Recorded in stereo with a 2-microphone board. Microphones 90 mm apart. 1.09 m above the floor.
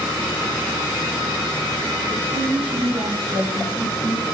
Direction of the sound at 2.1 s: 75° right (ahead or behind).